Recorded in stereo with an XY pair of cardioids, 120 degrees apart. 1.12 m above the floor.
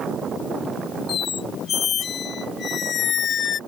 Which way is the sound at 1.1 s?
45° left.